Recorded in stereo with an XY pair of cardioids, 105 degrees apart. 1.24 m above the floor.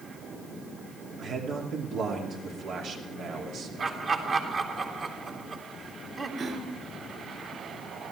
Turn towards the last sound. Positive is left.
turn(degrees=-55)